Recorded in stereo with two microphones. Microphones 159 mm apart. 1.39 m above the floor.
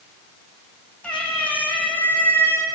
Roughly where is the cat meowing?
Centre.